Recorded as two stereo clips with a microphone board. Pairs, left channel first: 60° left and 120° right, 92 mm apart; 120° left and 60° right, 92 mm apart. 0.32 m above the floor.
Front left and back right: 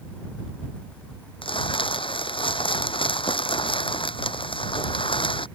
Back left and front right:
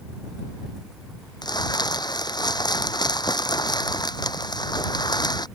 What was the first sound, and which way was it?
Crumpling, 80° left.